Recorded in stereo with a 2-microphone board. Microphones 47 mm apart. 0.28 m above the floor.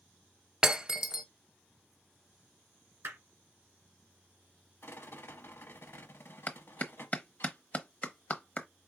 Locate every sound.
0.6 s breaking glass: 15° right (ahead or behind), 0.7 m
3.0 s hammering: 55° right (ahead or behind), 2 m
4.8 s a rattle: 55° left (ahead or behind), 0.7 m
6.5 s a clap: 35° left (ahead or behind), 0.8 m